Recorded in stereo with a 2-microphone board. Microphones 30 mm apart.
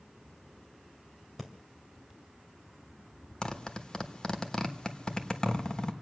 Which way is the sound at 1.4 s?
Centre (ahead or behind).